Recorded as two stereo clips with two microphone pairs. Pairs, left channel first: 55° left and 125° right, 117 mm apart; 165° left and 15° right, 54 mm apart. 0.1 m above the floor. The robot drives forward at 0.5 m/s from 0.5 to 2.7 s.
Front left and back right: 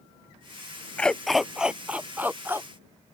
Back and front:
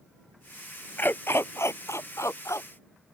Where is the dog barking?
130° left; by 3.1 s 165° left.